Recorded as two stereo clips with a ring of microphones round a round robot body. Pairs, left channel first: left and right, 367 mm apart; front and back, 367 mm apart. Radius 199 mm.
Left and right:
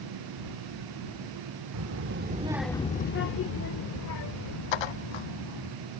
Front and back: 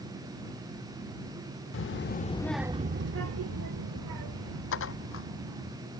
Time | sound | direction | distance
1.7 | a child speaking | 50° right | ?
4.7 | dishes clattering | 60° left | ?